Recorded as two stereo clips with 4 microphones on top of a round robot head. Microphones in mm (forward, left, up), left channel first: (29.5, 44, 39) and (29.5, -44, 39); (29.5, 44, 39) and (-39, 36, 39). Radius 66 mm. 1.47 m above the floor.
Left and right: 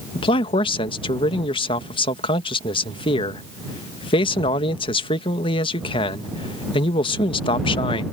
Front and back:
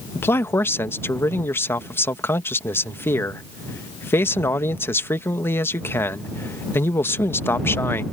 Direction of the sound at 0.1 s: 65° left.